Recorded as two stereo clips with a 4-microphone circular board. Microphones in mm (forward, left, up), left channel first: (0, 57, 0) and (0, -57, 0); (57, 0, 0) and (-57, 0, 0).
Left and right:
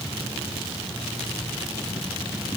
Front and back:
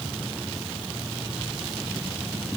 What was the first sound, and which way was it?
Only background noise.